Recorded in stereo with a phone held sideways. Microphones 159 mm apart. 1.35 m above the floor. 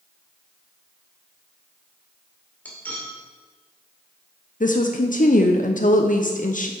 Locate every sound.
2.6 s cutlery clinking: 10° left (ahead or behind), 2 m
4.6 s a woman speaking: 55° left (ahead or behind), 0.6 m